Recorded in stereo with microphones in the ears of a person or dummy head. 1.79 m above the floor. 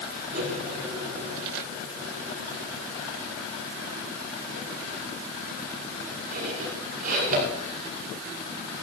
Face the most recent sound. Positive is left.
turn(degrees=-50)  # may be behind; listen again after turning